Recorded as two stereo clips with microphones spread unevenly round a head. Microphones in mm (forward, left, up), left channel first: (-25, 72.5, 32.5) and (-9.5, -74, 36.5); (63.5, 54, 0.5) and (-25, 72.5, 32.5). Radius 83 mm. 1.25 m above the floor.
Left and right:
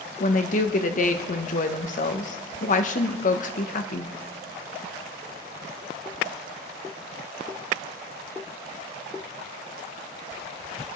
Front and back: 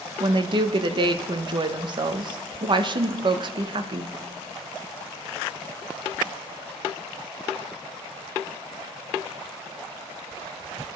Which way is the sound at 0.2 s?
135° left.